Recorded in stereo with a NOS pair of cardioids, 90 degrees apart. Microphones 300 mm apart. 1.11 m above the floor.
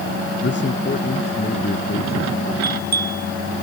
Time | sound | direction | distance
0.4 | a man speaking | 40° left | ?
2.6 | a bell | 30° right | ?